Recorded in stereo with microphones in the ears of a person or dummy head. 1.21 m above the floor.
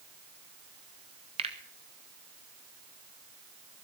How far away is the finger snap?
About 1.1 m.